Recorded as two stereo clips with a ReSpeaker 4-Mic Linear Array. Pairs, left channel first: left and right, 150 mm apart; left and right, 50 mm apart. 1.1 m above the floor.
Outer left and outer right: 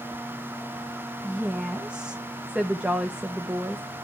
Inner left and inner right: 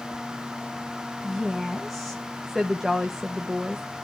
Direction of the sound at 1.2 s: 5° right (ahead or behind).